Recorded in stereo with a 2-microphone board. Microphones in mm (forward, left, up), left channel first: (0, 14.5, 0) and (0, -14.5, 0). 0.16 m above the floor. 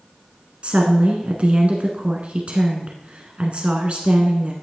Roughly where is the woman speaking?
Right.